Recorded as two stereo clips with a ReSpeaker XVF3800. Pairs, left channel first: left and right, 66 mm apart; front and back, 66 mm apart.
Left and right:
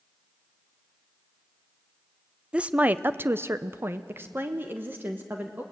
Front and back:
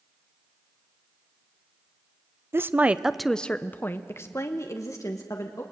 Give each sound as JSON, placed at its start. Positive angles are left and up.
{"t": 2.5, "sound": "a woman speaking", "azimuth_deg": -155, "distance_m": 0.6}